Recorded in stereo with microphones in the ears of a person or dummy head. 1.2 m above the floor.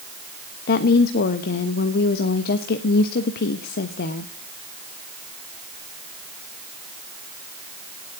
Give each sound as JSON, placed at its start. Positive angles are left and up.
{"t": 0.7, "sound": "a woman speaking", "side_deg": 55, "distance_m": 1.0}